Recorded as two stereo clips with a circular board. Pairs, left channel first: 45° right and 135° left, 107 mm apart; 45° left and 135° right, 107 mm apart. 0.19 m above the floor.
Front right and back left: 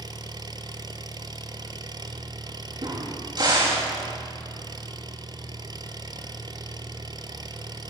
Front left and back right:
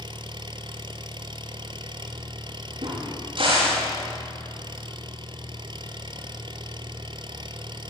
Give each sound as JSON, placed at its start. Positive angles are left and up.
{"t": 0.0, "sound": "an engine running", "azimuth_deg": -175, "distance_m": 1.3}
{"t": 2.8, "sound": "a crack", "azimuth_deg": -175, "distance_m": 9.5}